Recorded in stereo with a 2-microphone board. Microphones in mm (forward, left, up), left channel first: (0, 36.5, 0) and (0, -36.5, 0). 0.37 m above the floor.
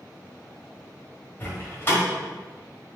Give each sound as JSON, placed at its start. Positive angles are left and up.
{"t": 1.4, "sound": "a door slam", "side_deg": 30, "distance_m": 1.1}